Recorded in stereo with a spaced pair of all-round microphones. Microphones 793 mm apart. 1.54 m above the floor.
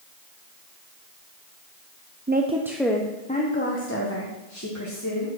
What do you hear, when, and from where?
2.3 s a woman speaking: 15° right (ahead or behind), 0.6 m; by 5.4 s 25° left (ahead or behind), 2 m